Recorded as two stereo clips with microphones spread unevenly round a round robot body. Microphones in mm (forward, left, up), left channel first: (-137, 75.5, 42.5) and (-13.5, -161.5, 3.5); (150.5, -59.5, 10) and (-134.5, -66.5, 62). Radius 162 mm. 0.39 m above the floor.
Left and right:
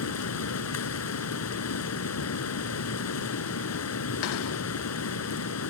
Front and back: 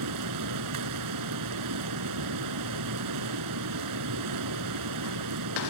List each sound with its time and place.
0.0 s running water: 145° left